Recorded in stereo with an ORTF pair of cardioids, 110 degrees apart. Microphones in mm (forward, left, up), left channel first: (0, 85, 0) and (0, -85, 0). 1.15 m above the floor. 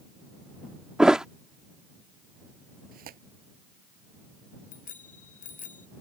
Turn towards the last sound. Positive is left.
turn(degrees=50)